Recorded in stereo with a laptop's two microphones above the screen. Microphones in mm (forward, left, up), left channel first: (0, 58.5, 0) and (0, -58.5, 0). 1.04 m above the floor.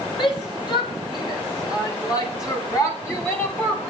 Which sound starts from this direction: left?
A shout, at 0.2 s.